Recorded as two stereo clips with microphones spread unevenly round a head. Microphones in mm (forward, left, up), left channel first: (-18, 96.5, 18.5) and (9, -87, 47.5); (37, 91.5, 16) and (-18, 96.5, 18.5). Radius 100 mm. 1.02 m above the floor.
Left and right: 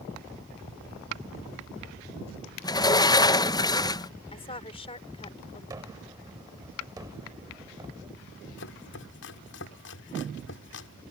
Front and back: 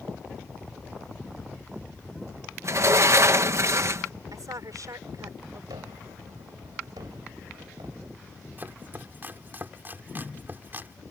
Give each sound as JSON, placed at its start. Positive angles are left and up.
{"t": 2.6, "sound": "a sliding door", "azimuth_deg": 155}
{"t": 4.3, "sound": "a woman speaking", "azimuth_deg": 160}
{"t": 5.7, "sound": "a gunshot", "azimuth_deg": -155}
{"t": 8.6, "sound": "chopping", "azimuth_deg": 120}